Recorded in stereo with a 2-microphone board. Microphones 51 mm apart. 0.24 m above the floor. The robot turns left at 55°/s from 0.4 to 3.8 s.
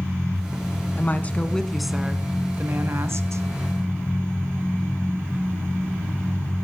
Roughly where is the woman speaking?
Ahead left.